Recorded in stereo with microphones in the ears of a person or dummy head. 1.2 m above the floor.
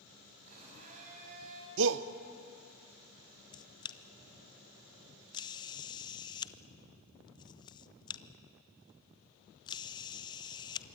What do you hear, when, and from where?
0.5 s a blender: 45° right (ahead or behind), 6.5 m
1.8 s a shout: 60° right (ahead or behind), 1.0 m
3.5 s a camera shutter: 25° left (ahead or behind), 0.6 m